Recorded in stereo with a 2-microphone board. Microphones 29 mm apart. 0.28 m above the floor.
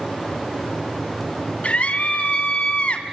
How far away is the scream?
About 2 m.